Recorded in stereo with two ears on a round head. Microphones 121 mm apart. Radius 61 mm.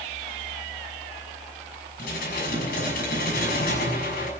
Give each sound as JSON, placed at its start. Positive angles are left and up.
{"t": 2.0, "sound": "dishes clattering", "side_deg": 75, "distance_m": 6.0}